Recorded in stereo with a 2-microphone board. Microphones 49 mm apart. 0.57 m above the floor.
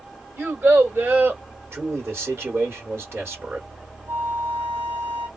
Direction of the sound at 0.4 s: 55° right (ahead or behind).